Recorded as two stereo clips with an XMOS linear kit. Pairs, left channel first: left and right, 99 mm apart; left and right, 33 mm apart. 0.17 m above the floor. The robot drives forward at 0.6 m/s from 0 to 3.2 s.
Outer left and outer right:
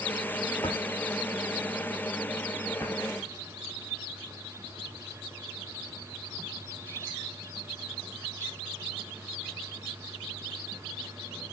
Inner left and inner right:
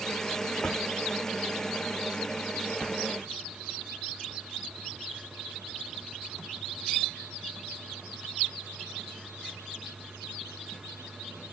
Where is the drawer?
40° left (ahead or behind), 2 m; by 3.0 s 25° left (ahead or behind), 3 m.